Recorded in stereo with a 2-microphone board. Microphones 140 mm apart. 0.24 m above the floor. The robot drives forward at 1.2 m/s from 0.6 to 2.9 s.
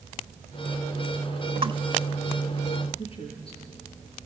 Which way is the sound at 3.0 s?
40° left (ahead or behind).